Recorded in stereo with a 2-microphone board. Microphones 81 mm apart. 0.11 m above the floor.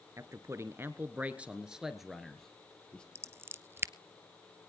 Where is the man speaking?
40° right (ahead or behind), 1.3 m; by 3.0 s 10° left (ahead or behind), 1.9 m.